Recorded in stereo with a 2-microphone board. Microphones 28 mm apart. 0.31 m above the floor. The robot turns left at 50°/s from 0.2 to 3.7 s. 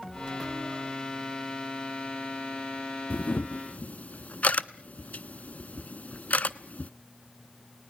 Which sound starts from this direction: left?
A camera shutter, at 3.1 s.